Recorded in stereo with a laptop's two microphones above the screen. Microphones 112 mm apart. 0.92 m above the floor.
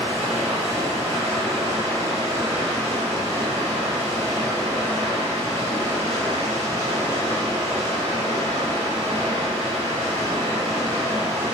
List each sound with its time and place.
0.0 s running water: 80° right, 1.1 m